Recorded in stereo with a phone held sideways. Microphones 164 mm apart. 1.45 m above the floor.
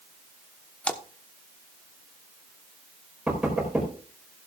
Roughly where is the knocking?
Centre.